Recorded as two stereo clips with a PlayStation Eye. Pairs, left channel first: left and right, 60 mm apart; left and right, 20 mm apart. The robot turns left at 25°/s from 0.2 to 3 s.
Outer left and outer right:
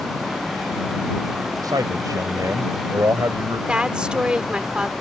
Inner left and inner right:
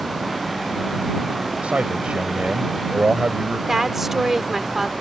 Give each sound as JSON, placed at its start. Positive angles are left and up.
{"t": 1.6, "sound": "a man speaking", "azimuth_deg": -90}
{"t": 3.7, "sound": "a woman speaking", "side_deg": -15}